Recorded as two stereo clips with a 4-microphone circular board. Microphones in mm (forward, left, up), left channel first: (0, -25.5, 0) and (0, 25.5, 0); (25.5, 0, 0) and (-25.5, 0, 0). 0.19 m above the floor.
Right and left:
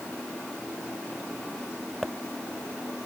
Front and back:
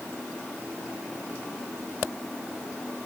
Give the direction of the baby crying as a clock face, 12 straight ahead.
No baby crying in this recording.